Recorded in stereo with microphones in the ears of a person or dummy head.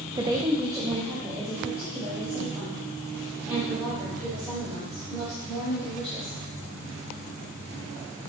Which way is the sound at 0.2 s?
15° right (ahead or behind).